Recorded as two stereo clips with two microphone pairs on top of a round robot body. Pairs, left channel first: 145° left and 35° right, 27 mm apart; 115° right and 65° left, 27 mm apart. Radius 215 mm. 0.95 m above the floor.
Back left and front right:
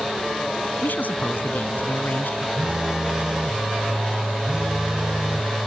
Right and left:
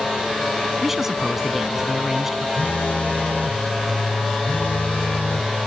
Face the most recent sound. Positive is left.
turn(degrees=-95)